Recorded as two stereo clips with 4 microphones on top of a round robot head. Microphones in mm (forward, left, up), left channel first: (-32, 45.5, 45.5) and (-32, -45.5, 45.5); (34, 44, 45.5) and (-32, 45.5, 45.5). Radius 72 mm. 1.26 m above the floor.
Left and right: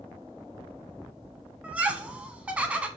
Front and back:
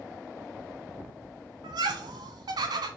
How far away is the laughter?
About 1.0 m.